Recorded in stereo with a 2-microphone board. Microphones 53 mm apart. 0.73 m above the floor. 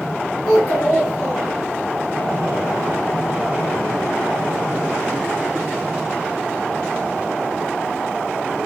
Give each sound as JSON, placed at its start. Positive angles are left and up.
{"t": 0.5, "sound": "a child speaking", "side_deg": 25, "distance_m": 2.0}